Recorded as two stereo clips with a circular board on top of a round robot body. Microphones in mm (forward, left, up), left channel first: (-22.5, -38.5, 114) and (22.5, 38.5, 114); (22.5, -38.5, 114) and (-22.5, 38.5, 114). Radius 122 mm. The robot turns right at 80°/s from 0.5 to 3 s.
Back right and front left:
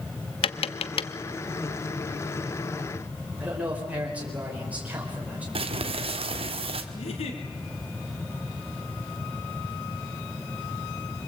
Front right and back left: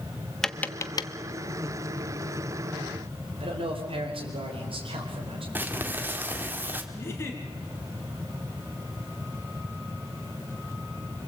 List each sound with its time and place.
0.4 s tapping: 145° right, 0.8 m; by 1.1 s 95° right, 0.8 m
3.4 s a man speaking: 135° left, 4.5 m
5.5 s crumpling: 50° left, 1.9 m
6.9 s a giggle: 120° right, 3 m